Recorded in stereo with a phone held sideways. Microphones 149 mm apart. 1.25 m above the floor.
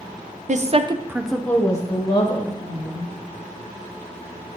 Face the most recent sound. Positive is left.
turn(degrees=40)  # may be behind; listen again after turning